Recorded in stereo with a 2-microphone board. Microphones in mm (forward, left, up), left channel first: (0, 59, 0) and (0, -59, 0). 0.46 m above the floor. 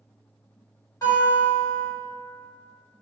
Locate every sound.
1.0 s a guitar: 30° left (ahead or behind), 1.9 m